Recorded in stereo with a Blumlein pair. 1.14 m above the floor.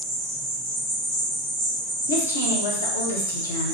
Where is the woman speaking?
70° left, 0.9 m.